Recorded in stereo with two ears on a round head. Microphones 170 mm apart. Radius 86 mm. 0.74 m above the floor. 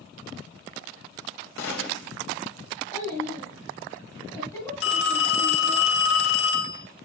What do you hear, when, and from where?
1.6 s a gunshot: 75° left (ahead or behind), 3 m
2.9 s a child speaking: 15° left (ahead or behind), 3.5 m
4.8 s a phone ringing: 65° left (ahead or behind), 3 m